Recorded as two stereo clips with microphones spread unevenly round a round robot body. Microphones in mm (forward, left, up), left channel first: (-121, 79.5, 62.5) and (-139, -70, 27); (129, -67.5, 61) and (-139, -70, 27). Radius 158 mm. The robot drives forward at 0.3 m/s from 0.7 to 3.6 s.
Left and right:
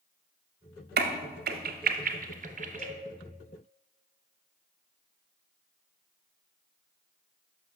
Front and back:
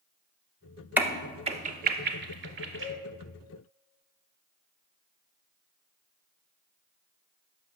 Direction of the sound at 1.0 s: 95° right.